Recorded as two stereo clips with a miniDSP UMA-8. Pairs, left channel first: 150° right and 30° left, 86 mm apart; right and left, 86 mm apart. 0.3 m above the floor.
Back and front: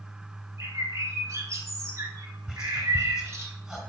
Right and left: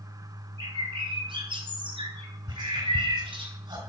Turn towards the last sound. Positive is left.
turn(degrees=115)